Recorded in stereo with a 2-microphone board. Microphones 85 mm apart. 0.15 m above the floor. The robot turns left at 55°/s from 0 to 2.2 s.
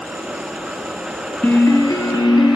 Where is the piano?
155° left, 1.1 m; by 2.6 s 115° left, 1.1 m.